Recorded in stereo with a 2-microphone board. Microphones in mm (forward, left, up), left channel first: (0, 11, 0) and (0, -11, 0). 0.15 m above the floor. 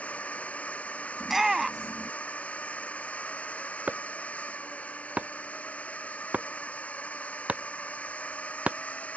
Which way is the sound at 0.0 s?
80° left.